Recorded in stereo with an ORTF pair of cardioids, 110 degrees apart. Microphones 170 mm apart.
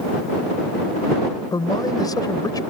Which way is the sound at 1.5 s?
25° left.